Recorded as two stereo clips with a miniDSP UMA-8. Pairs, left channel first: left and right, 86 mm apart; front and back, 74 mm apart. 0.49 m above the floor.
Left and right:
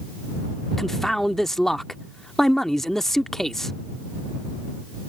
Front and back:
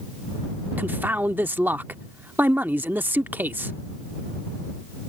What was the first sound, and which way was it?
A man speaking, 175° left.